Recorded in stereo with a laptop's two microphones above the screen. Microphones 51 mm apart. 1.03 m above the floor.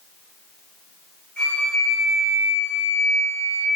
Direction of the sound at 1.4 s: 25° left (ahead or behind).